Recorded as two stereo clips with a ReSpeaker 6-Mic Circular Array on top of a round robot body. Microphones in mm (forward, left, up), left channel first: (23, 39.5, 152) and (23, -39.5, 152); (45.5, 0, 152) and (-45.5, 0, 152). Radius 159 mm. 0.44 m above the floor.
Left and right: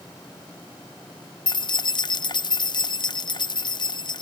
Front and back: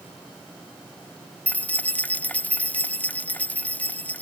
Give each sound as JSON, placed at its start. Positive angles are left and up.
{"t": 1.5, "sound": "keys jangling", "azimuth_deg": 75}